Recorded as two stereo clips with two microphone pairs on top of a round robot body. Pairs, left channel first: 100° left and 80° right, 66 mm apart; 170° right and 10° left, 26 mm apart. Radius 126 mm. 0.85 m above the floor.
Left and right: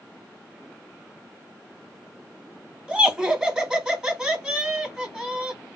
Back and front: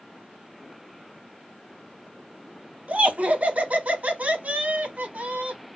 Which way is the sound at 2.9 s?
Straight ahead.